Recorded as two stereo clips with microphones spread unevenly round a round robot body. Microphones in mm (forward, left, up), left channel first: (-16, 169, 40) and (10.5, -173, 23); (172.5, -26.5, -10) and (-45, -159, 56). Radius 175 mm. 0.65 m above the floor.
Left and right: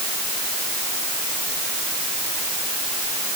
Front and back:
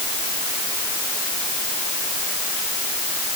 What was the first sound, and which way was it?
Only background noise.